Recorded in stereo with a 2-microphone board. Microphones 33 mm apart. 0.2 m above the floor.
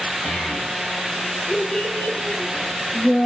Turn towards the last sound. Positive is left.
turn(degrees=50)  # may be behind; listen again after turning